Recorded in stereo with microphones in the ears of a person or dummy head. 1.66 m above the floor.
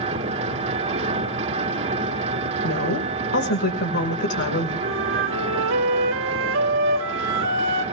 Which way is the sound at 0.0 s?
35° right (ahead or behind).